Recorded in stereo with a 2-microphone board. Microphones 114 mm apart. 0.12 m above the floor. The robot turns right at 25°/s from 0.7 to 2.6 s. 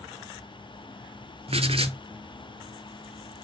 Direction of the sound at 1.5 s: 60° right (ahead or behind).